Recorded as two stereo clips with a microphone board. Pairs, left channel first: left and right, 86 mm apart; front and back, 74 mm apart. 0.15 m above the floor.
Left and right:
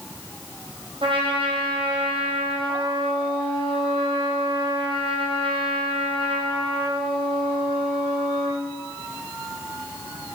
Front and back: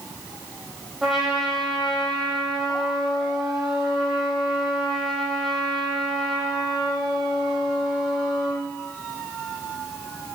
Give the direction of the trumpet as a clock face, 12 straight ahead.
3 o'clock.